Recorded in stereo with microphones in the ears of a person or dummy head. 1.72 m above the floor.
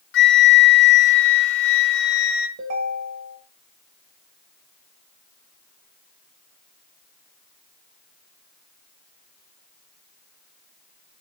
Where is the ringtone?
45° right (ahead or behind), 1.5 m.